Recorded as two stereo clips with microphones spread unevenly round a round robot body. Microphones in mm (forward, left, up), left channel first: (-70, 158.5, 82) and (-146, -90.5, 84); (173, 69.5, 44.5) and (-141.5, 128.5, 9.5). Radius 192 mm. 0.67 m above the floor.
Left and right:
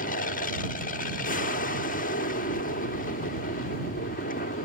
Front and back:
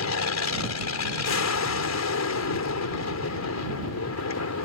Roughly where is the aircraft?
Ahead.